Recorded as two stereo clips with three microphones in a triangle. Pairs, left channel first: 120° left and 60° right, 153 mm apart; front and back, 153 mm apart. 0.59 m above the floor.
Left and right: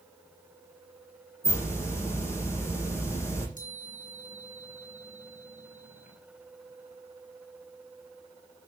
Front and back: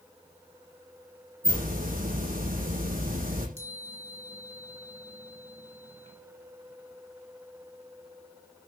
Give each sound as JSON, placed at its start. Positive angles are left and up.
{"t": 1.4, "sound": "a hiss", "azimuth_deg": -170, "distance_m": 8.5}
{"t": 3.6, "sound": "a chime", "azimuth_deg": 145, "distance_m": 5.0}